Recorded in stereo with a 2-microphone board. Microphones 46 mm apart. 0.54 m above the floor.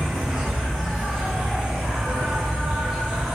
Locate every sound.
0.0 s an insect: 5° right (ahead or behind), 1.5 m